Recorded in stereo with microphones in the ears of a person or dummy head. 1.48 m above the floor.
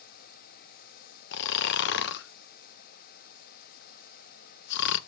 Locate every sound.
1.3 s snoring: 60° left (ahead or behind), 0.5 m